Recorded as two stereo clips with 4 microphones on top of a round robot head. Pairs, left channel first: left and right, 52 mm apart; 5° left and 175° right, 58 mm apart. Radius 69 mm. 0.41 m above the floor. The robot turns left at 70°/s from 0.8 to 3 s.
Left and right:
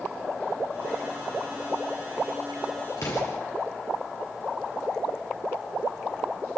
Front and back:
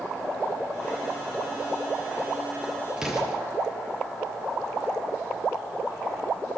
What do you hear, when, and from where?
3.0 s an explosion: 110° left, 7 m